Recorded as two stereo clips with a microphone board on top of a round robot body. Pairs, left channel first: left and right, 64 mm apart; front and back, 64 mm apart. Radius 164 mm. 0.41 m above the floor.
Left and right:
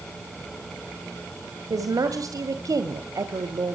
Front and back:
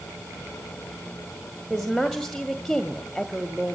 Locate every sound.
1.7 s a woman speaking: 85° right, 1.9 m